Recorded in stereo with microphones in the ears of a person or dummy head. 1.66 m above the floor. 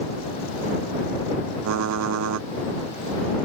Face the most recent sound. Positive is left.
turn(degrees=-75)  # may be behind; listen again after turning